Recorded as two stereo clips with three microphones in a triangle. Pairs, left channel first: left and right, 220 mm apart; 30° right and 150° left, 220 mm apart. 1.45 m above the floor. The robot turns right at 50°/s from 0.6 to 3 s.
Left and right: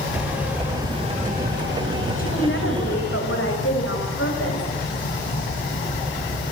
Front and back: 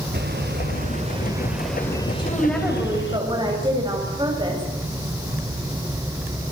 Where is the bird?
175° right, 2.5 m; by 3.2 s 55° right, 2.5 m.